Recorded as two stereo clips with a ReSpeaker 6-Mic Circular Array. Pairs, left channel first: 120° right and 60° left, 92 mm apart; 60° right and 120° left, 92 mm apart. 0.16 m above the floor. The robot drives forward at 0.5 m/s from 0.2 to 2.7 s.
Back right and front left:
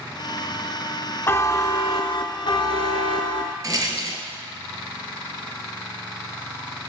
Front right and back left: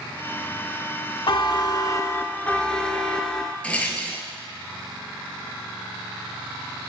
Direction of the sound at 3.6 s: 15° left.